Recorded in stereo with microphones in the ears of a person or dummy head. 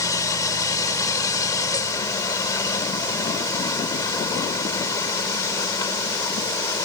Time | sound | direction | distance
0.0 | a machine running | 20° left (ahead or behind) | ?